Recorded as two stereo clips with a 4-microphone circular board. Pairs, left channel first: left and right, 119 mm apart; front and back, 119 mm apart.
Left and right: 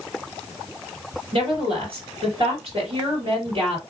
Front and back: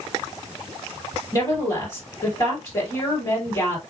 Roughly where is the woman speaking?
Ahead right.